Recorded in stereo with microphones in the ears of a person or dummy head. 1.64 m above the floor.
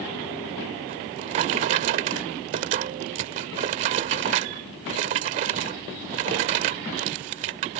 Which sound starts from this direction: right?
A drawer, at 0.9 s.